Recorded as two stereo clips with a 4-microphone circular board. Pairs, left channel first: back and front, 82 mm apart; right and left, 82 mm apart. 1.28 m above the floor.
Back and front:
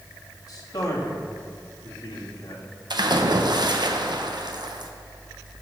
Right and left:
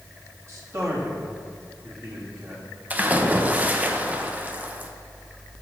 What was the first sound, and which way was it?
A man speaking, 140° left.